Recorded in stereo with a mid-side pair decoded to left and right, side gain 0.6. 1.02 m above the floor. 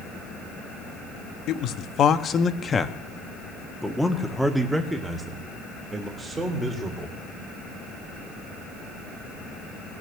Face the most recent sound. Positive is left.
turn(degrees=-25)